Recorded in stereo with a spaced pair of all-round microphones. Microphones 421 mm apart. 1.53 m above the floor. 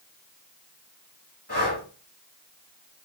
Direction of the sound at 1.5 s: 35° right (ahead or behind).